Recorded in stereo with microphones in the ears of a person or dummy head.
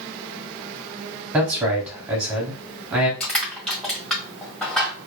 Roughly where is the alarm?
No alarm in this recording.